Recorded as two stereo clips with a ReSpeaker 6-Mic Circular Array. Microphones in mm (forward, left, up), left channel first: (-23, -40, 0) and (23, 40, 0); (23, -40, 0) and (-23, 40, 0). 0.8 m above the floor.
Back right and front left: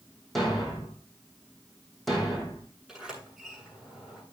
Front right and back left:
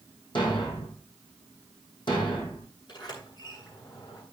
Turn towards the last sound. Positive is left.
turn(degrees=-25)